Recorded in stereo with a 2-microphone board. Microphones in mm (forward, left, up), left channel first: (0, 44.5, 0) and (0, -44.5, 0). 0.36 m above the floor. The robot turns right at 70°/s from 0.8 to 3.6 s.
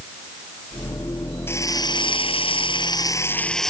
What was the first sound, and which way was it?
A drill, 25° left.